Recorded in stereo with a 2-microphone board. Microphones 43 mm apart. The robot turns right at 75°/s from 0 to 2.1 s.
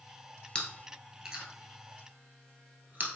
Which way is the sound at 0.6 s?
25° left (ahead or behind).